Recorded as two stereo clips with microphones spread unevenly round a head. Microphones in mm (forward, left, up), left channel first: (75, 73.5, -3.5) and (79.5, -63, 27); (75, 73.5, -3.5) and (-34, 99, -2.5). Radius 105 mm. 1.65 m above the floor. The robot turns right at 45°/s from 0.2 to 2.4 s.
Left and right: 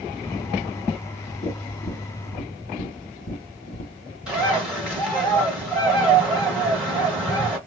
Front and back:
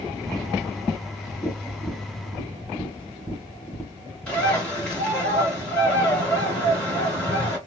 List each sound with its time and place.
1.4 s tapping: 75° left, 1.5 m; by 4.2 s 120° left, 1.5 m
4.3 s a bird: 85° right, 1.5 m